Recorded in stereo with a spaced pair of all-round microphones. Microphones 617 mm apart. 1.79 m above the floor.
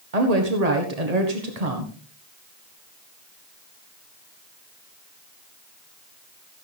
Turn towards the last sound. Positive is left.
turn(degrees=-85)